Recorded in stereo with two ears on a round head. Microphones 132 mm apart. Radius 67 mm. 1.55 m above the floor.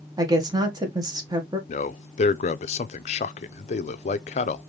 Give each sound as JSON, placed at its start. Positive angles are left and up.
{"t": 0.2, "sound": "a woman speaking", "side_deg": -25, "distance_m": 1.6}
{"t": 1.7, "sound": "a man speaking", "side_deg": 45, "distance_m": 0.5}